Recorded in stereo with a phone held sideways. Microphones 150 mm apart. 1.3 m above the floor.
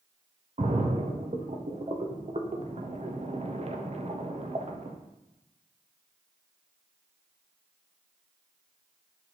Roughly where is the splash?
Right.